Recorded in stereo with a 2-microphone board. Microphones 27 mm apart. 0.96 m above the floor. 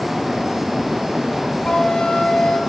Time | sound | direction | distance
1.6 | a flute | 40° left (ahead or behind) | 0.9 m